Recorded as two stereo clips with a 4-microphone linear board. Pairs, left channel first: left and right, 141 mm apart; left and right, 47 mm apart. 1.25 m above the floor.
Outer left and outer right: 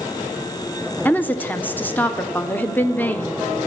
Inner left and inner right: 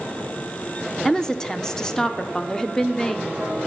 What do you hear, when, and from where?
1.1 s a woman speaking: 10° left (ahead or behind), 0.6 m